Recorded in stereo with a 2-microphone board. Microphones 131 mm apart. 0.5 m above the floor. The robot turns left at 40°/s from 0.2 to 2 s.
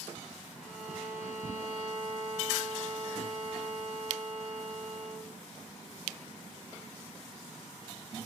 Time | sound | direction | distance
0.6 | a violin | 10° left | 1.0 m